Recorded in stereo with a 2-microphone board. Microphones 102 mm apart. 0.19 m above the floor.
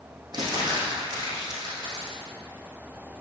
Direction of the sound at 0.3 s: 45° right (ahead or behind).